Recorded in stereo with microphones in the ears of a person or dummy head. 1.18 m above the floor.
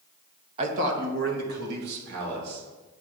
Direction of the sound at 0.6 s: 30° right (ahead or behind).